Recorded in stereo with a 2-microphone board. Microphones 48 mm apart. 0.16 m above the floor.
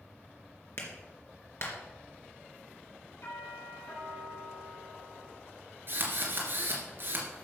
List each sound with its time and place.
0.8 s a clap: 60° left (ahead or behind), 2.5 m
3.2 s a doorbell: 70° left (ahead or behind), 5.5 m
5.9 s a drill: 50° right (ahead or behind), 3 m